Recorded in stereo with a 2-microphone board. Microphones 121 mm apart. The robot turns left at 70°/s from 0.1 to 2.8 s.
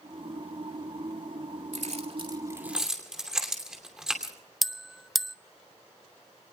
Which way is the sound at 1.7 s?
80° right.